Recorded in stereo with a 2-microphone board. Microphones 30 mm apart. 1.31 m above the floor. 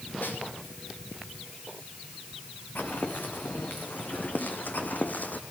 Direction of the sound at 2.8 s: 70° left (ahead or behind).